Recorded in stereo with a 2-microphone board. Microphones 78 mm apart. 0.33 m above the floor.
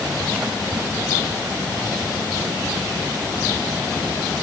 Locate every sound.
Only background noise.